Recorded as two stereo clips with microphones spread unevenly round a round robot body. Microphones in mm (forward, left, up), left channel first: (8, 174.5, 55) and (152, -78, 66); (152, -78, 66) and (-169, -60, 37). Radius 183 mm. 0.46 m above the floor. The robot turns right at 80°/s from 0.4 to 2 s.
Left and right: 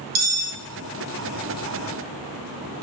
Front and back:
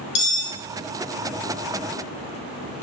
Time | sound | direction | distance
0.1 | cutlery clinking | 30° right | 0.5 m